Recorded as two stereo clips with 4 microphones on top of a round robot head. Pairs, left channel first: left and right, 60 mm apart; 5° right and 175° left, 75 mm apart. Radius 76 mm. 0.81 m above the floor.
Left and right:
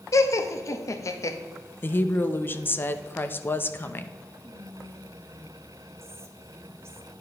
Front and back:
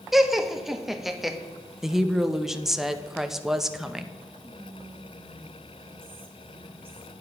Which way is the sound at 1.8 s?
95° left.